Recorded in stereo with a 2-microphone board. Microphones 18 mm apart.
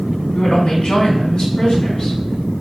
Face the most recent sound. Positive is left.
turn(degrees=70)  # may be behind; listen again after turning